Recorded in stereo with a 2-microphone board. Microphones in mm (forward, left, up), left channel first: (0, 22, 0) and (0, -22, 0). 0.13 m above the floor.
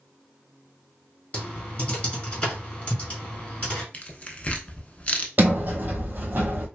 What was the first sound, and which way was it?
Typing on a keyboard, 25° left (ahead or behind).